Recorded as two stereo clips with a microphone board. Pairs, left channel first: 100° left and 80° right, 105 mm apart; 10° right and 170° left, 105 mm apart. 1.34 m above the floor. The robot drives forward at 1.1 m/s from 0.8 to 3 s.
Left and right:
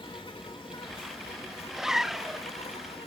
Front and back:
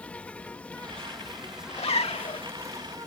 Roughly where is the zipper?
Ahead.